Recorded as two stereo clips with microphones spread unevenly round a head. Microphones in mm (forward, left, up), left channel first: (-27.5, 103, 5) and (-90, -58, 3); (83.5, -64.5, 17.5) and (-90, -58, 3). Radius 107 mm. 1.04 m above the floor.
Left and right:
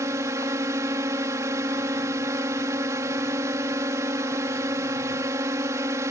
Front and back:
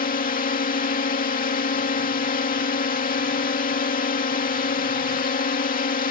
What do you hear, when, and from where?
0.0 s a drone: 35° right